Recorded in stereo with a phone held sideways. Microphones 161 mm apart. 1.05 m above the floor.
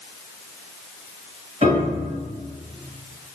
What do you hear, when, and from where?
1.6 s a piano: 40° right (ahead or behind), 1.7 m